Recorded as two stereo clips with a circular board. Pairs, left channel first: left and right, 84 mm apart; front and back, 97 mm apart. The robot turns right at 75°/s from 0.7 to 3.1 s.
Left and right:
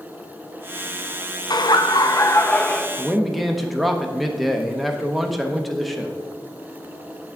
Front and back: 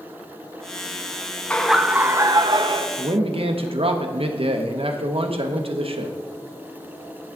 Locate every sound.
1.5 s laughter: 75° left, 0.5 m; by 2.9 s 175° left, 0.5 m
3.0 s a man speaking: 170° left, 0.7 m; by 6.2 s straight behind, 0.7 m